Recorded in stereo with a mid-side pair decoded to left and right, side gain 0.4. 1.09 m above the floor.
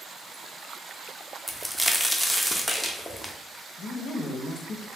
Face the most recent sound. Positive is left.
turn(degrees=65)